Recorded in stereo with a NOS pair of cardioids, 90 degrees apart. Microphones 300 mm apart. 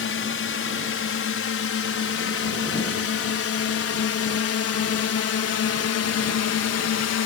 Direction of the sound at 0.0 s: 45° left.